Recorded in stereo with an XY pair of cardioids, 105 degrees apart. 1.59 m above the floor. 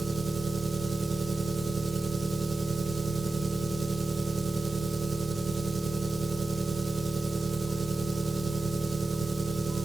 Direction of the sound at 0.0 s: 30° right.